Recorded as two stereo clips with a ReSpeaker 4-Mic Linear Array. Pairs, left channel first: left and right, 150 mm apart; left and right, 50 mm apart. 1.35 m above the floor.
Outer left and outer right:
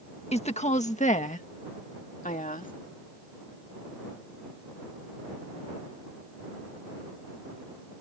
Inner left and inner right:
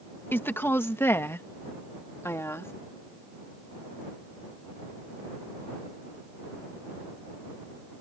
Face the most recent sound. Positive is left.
turn(degrees=60)  # may be behind; listen again after turning